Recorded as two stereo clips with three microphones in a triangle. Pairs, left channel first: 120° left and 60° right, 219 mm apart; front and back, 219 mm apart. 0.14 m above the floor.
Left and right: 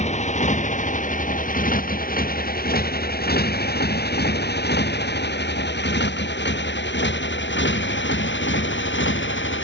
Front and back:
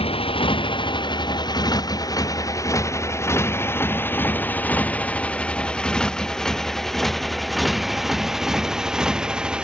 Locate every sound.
0.0 s a motorcycle: 65° left; by 9.6 s 95° left